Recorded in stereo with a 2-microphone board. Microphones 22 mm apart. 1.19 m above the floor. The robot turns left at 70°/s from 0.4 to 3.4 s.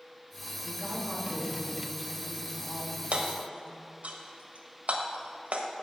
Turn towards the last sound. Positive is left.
turn(degrees=-85)